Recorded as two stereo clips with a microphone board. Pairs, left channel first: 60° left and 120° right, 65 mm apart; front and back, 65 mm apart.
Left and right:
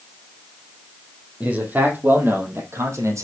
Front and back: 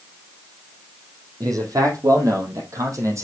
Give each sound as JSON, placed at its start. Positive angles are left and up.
{"t": 1.4, "sound": "a man speaking", "azimuth_deg": 175, "distance_m": 4.0}